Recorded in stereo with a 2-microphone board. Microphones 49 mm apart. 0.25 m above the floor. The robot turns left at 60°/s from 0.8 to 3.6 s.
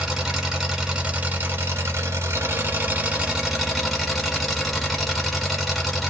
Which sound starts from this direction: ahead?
An engine running, at 0.0 s.